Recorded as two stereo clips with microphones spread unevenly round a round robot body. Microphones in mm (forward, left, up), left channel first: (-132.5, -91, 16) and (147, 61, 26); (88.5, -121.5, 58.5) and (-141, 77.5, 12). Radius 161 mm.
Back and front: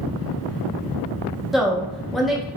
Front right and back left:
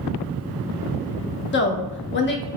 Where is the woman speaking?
65° right, 0.6 m.